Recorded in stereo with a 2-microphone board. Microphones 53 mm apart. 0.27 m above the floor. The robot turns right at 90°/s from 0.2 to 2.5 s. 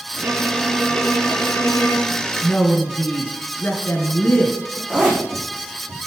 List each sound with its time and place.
0.2 s a violin: 30° right, 4.5 m; by 2.2 s 155° left, 4.5 m
2.4 s a woman speaking: 45° left (ahead or behind), 4.5 m; by 4.8 s 35° left (ahead or behind), 4.5 m
4.9 s a zipper: 15° right (ahead or behind), 8 m